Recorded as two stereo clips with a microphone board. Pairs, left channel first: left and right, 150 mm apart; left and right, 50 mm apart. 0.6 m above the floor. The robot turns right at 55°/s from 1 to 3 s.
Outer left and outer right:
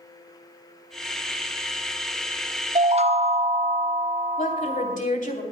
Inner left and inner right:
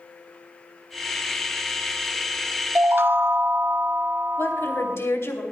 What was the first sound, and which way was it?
A chime, 50° right (ahead or behind).